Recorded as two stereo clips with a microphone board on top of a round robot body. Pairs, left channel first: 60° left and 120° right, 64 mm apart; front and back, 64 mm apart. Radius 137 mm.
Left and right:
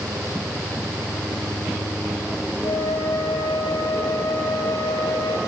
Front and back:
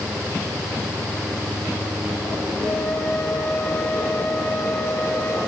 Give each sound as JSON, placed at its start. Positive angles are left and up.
{"t": 2.6, "sound": "a flute", "azimuth_deg": 65, "distance_m": 10.0}